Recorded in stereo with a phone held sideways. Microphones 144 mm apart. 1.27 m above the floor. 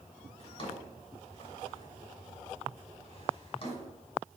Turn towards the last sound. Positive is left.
turn(degrees=40)  # may be behind; listen again after turning